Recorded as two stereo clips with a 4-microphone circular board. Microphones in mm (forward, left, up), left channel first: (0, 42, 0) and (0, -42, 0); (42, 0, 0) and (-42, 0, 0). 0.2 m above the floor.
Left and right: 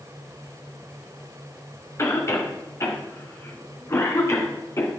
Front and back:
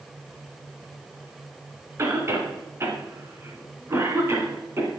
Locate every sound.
2.0 s a cough: 135° left, 2 m